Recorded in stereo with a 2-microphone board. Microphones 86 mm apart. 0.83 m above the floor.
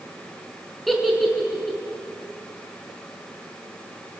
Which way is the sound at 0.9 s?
Centre (ahead or behind).